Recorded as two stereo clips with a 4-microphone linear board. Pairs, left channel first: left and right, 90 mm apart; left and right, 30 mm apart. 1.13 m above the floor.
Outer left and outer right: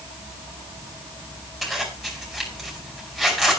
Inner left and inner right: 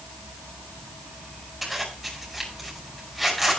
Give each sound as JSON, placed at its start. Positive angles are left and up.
{"t": 1.6, "sound": "a zipper", "side_deg": 0, "distance_m": 5.0}